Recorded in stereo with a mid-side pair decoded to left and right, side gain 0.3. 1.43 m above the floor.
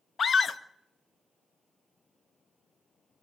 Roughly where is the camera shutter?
I don't hear a camera shutter.